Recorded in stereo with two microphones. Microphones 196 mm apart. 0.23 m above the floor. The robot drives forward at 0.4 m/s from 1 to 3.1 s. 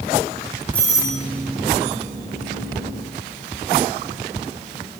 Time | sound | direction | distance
0.7 | a doorbell | 10° left (ahead or behind) | 1.5 m